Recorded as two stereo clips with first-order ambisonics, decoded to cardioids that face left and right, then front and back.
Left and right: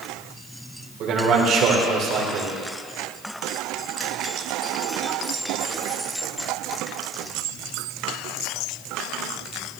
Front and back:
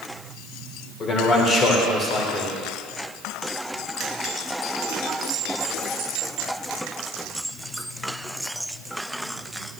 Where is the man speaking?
55° right, 1.6 m.